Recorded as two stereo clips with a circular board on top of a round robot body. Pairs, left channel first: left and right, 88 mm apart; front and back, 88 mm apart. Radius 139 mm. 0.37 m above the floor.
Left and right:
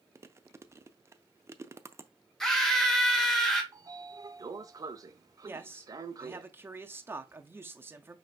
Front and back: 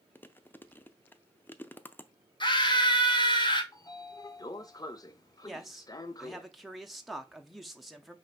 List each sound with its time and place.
0.1 s chewing: 55° right, 0.7 m
2.4 s a scream: 5° left, 2 m
3.7 s a sliding door: 45° right, 0.7 m
5.5 s a man speaking: 90° right, 0.9 m